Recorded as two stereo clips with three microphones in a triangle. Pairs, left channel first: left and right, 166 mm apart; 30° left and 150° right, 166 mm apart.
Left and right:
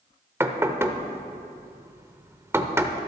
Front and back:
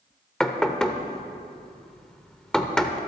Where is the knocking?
50° right, 0.9 m.